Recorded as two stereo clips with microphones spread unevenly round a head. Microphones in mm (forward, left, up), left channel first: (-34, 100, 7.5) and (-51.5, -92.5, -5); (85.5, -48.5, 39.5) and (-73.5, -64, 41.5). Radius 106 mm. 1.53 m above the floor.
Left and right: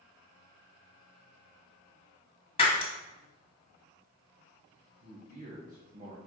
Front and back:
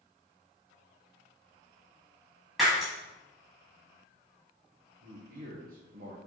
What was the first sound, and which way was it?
Breaking glass, 100° left.